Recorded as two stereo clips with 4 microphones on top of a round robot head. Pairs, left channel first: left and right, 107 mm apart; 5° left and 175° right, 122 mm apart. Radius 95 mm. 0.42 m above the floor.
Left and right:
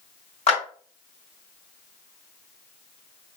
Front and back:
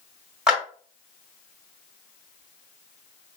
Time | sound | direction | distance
0.5 | a clap | 100° left | 2.5 m